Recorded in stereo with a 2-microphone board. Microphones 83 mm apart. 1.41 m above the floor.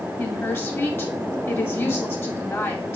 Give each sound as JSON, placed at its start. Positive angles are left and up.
{"t": 0.2, "sound": "a woman speaking", "side_deg": 30, "distance_m": 3.0}